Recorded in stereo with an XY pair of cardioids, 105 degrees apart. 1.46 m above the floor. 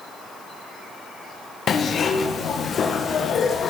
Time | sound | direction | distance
1.7 | a zipper | 50° left | 1.0 m